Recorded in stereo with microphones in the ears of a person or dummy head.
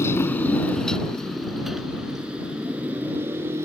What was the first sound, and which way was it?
A motorcycle, 20° left (ahead or behind).